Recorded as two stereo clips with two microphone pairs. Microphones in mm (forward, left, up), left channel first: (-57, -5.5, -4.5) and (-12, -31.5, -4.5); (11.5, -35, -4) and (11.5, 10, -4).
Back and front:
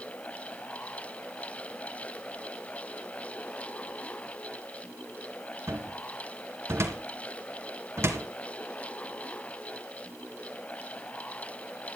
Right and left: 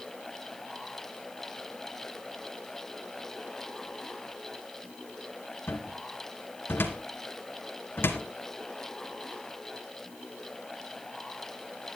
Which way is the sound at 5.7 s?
65° right.